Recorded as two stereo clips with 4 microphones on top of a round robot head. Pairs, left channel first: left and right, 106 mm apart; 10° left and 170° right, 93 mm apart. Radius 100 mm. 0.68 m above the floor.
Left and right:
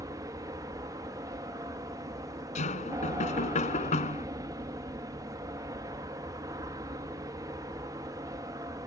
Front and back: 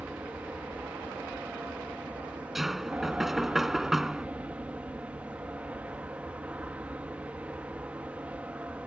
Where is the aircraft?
105° right.